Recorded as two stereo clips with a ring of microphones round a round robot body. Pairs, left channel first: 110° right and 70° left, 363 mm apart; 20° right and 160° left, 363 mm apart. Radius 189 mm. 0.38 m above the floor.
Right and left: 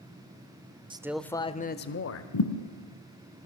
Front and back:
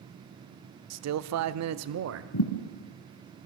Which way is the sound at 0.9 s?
140° left.